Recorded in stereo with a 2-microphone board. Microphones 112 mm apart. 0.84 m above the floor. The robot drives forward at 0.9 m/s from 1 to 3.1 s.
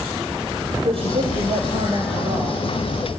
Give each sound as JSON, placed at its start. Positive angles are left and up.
{"t": 0.8, "sound": "a woman speaking", "side_deg": -55, "distance_m": 4.0}